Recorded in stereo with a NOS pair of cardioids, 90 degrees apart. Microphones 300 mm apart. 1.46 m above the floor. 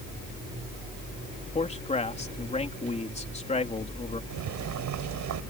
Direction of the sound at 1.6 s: 20° left.